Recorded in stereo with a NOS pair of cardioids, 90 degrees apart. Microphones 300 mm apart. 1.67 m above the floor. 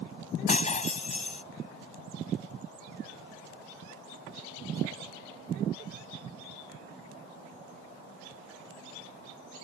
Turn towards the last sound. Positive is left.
turn(degrees=25)